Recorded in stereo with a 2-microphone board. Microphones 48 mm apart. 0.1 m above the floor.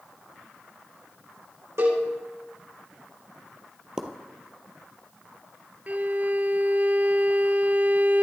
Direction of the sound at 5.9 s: 35° right (ahead or behind).